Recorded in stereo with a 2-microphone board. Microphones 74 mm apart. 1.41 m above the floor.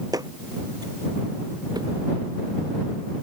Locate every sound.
0.1 s footsteps: 55° right (ahead or behind); by 1.9 s 65° right (ahead or behind)